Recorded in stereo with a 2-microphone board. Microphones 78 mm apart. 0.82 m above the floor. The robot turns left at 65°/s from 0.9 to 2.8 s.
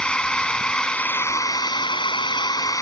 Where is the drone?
170° left; by 2.8 s 45° left.